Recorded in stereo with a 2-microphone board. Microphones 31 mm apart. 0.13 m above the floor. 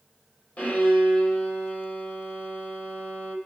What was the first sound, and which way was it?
A violin, 60° left (ahead or behind).